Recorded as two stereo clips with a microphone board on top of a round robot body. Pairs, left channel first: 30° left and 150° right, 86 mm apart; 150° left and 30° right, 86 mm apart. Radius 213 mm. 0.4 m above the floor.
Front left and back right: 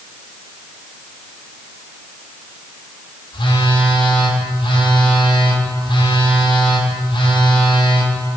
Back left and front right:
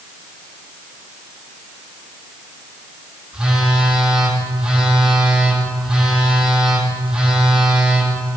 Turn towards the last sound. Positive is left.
turn(degrees=50)